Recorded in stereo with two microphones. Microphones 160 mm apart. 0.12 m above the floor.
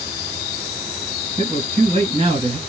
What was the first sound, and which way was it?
A man speaking, 30° right (ahead or behind).